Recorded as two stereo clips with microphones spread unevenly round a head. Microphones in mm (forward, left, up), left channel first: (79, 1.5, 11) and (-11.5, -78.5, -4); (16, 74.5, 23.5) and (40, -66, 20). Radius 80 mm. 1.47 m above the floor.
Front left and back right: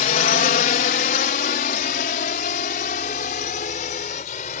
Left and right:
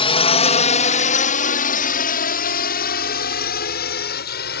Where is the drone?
55° left; by 4.6 s 90° left.